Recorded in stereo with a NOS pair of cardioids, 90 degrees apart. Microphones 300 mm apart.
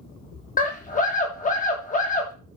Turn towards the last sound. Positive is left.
turn(degrees=25)